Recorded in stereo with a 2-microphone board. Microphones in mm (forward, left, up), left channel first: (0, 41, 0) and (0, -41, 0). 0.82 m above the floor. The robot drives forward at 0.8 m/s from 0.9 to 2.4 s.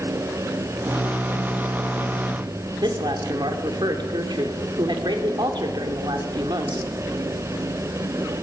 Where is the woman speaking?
70° right (ahead or behind), 2.5 m.